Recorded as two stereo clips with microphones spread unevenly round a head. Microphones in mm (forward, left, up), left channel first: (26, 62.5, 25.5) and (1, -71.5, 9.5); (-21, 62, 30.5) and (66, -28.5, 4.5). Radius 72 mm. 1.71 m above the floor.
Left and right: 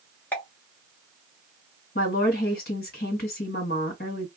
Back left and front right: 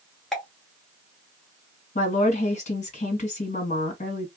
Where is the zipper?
No zipper in this recording.